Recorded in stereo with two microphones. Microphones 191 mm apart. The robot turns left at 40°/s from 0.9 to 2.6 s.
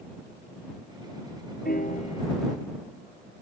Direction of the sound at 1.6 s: 50° left (ahead or behind).